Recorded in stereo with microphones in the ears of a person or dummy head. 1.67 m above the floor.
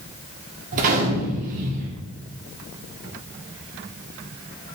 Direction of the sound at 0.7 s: 45° right (ahead or behind).